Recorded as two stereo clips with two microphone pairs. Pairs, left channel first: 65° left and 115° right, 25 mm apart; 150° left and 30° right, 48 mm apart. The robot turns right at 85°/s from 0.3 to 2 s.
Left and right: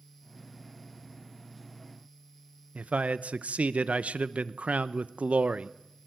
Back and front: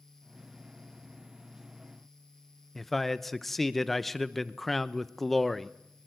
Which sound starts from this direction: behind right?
A man speaking, at 2.8 s.